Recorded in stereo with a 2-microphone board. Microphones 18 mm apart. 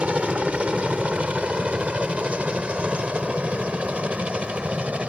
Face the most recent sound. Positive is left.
turn(degrees=-80)